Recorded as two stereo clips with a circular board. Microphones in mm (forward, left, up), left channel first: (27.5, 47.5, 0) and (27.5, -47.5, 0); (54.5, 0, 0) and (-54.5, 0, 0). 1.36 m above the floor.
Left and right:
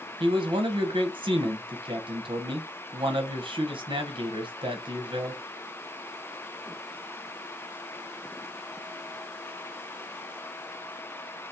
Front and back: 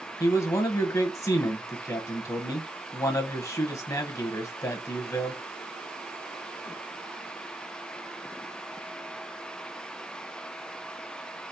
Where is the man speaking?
60° right, 1.0 m.